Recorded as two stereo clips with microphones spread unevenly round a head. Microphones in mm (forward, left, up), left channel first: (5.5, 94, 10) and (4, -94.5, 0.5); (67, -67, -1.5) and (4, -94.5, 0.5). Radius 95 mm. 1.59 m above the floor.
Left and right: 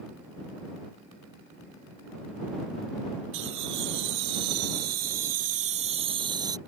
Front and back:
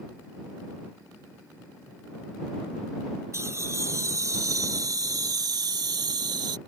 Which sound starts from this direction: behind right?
Laughter, at 3.3 s.